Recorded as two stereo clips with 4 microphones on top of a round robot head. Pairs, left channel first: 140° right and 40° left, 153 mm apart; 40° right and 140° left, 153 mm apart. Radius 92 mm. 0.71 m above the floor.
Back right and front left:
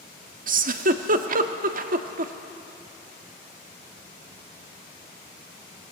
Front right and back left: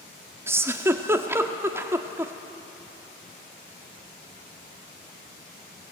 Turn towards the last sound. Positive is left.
turn(degrees=65)